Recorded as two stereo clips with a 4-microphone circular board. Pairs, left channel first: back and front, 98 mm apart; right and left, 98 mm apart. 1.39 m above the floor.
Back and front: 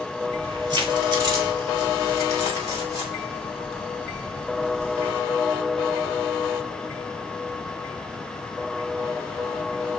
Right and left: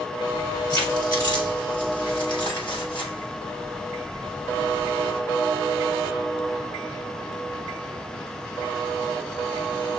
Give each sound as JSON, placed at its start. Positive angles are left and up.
{"t": 0.3, "sound": "keys jangling", "azimuth_deg": -40, "distance_m": 4.5}